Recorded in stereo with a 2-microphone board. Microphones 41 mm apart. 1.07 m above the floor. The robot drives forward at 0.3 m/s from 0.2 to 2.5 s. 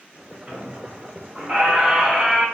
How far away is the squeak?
About 0.9 m.